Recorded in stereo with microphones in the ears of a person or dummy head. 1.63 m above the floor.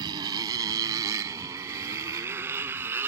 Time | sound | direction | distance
0.0 | a motorcycle | 25° right (ahead or behind) | ?